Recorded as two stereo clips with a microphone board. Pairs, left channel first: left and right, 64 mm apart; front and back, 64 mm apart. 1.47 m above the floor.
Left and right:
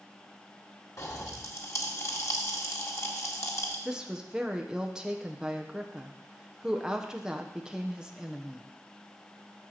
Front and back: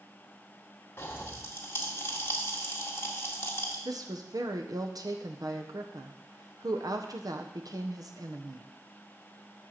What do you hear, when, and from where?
1.0 s a pop: 50° left, 1.6 m
3.9 s a woman speaking: 170° right, 1.1 m